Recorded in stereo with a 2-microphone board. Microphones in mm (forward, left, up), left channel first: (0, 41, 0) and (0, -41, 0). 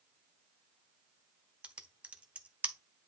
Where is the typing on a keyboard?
15° right (ahead or behind), 0.9 m.